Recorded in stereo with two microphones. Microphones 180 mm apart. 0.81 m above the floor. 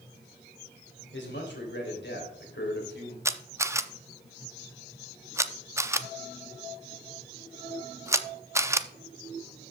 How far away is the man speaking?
About 3 m.